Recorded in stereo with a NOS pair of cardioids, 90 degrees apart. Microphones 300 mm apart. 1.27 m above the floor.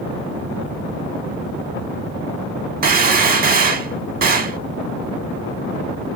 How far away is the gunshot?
About 0.8 m.